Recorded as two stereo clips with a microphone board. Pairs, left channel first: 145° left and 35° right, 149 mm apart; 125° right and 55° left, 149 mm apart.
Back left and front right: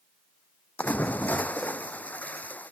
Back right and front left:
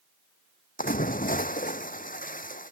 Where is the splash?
135° right.